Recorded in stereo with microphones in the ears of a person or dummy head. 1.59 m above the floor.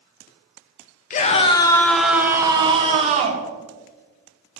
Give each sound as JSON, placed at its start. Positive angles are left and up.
{"t": 1.1, "sound": "a scream", "side_deg": 45, "distance_m": 0.7}